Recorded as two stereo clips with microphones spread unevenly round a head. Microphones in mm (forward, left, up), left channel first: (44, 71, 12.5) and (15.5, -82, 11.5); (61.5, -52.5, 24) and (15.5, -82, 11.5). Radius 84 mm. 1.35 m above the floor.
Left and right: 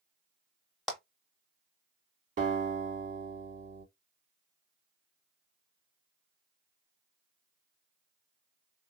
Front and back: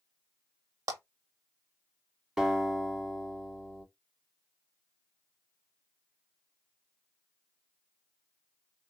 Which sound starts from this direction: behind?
A clap, at 0.9 s.